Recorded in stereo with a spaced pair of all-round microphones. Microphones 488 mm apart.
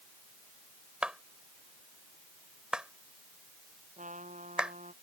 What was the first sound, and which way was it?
A clap, centre (ahead or behind).